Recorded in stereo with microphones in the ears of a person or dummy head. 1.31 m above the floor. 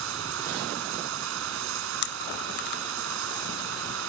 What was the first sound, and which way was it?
Running water, 75° right (ahead or behind).